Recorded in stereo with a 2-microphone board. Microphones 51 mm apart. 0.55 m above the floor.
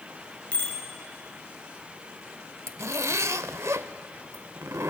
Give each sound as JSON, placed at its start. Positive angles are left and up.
{"t": 0.5, "sound": "a bicycle bell", "side_deg": 25, "distance_m": 6.0}
{"t": 2.7, "sound": "a zipper", "side_deg": -70, "distance_m": 0.7}